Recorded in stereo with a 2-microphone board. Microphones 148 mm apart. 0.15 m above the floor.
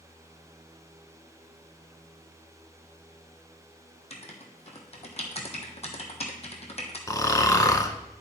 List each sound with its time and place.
4.1 s writing: 45° left (ahead or behind), 1.2 m
7.1 s snoring: 25° left (ahead or behind), 0.6 m